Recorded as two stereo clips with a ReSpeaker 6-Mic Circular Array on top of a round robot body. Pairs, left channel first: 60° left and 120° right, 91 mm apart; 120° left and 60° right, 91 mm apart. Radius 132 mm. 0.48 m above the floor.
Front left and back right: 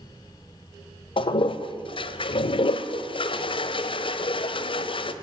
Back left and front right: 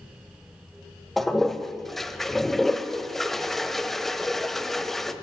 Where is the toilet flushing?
35° left, 1.0 m.